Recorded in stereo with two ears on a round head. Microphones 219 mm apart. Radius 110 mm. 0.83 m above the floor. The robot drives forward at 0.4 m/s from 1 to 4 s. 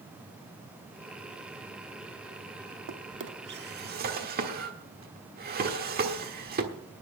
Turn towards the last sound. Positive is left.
turn(degrees=-40)  # may be behind; listen again after turning